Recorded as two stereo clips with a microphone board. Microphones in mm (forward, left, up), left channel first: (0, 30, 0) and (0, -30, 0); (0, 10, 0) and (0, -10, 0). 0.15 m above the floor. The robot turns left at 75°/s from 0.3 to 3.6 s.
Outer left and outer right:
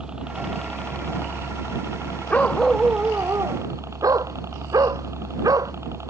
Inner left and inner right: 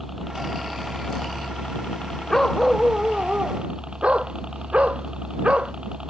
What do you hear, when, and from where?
0.0 s a helicopter: 165° right; by 6.1 s 50° right
2.3 s a dog barking: 25° left; by 5.7 s 70° right